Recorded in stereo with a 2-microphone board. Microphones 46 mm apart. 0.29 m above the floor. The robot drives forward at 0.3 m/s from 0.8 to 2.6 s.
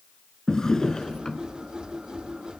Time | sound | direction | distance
0.5 | a drawer | 15° left (ahead or behind) | 0.9 m